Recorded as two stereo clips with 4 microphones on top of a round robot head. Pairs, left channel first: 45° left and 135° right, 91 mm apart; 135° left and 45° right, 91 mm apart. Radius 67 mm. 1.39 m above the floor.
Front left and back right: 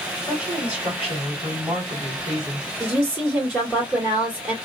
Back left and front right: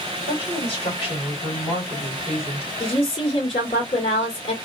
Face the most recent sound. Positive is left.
turn(degrees=150)